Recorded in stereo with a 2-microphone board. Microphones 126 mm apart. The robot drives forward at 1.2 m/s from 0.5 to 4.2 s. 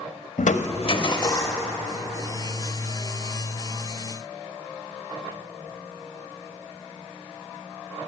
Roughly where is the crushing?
Left.